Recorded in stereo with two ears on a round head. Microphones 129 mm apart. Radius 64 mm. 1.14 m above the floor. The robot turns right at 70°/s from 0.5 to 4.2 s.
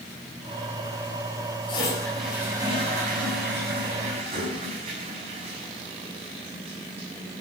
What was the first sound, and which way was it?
A toilet flushing, 140° left.